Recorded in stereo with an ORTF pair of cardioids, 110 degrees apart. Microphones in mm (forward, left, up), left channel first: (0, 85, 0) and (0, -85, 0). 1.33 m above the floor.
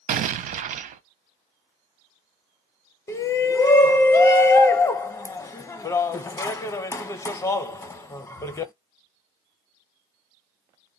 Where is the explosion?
50° right, 0.6 m.